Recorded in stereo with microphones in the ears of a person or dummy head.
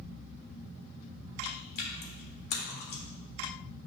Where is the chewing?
60° left (ahead or behind), 1.7 m.